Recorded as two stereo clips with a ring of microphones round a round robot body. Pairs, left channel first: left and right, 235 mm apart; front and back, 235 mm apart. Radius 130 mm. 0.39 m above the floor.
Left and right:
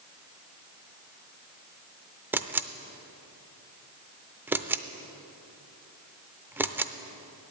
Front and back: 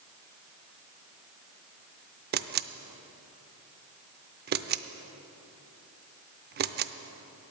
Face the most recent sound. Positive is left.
turn(degrees=-170)